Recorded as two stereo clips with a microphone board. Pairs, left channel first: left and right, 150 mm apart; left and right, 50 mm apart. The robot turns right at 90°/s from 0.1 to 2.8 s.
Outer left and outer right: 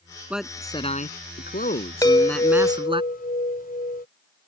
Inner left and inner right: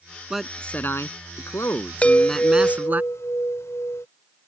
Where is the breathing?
I don't hear breathing.